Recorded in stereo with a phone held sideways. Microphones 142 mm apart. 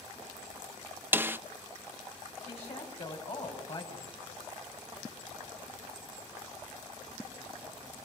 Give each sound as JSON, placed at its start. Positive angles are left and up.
{"t": 1.1, "sound": "a snare drum", "side_deg": -15, "distance_m": 0.6}
{"t": 2.5, "sound": "a woman speaking", "side_deg": 45, "distance_m": 5.5}